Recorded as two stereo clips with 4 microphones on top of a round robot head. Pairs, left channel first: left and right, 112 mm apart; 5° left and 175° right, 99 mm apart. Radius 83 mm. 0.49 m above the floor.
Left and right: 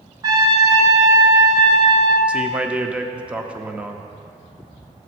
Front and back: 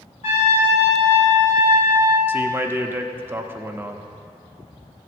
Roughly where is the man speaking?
Behind right.